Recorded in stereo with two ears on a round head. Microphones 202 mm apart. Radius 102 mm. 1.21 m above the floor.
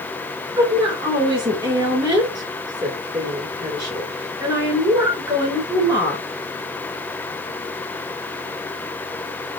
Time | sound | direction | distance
0.6 | a woman speaking | 20° right (ahead or behind) | 4.5 m